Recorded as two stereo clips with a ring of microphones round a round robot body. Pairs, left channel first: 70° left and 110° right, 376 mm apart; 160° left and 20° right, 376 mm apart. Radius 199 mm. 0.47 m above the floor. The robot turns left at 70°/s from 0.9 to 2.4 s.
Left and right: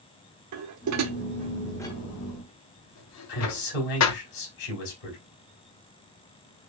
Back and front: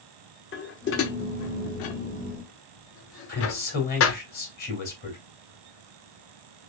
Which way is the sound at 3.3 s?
90° left.